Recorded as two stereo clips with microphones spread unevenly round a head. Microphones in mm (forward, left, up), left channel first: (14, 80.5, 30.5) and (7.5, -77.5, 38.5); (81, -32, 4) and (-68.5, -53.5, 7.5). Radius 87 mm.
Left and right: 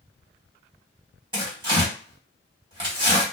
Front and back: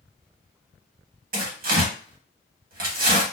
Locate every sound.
1.3 s tearing paper: 155° right, 1.1 m